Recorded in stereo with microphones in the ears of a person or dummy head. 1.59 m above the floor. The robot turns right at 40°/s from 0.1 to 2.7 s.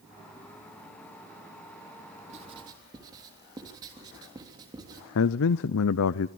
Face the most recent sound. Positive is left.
turn(degrees=70)  # may be behind; listen again after turning